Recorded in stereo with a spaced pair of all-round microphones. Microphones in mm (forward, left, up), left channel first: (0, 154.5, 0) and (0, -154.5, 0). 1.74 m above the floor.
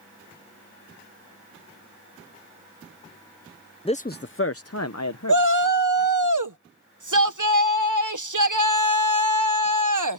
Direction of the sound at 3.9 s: 15° left (ahead or behind).